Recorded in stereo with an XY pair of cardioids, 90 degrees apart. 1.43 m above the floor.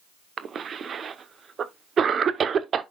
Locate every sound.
0.4 s a cough: 55° right, 0.9 m